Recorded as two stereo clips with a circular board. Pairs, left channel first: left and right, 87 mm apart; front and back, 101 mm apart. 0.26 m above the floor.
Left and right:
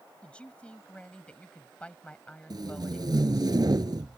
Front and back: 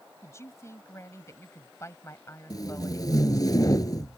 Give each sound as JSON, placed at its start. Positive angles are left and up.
{"t": 0.2, "sound": "a man speaking", "azimuth_deg": 25}
{"t": 2.5, "sound": "tape being pulled", "azimuth_deg": -50}